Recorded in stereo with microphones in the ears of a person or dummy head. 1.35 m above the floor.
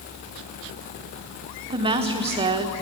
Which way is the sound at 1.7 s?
30° right (ahead or behind).